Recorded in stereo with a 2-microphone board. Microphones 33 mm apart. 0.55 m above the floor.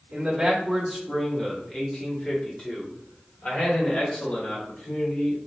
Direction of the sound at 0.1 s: 10° right (ahead or behind).